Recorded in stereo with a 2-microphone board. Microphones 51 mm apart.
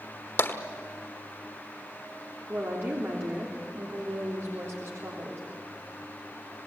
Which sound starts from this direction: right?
A woman speaking, at 2.5 s.